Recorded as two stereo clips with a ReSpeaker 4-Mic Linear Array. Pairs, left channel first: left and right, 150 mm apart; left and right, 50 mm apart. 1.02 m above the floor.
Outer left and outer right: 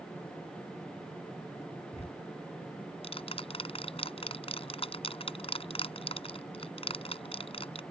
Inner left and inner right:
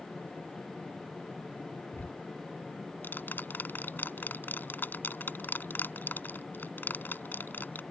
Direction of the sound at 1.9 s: 40° left (ahead or behind).